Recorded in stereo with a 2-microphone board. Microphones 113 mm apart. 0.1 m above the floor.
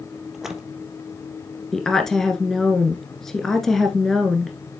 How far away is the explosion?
No explosion in this recording.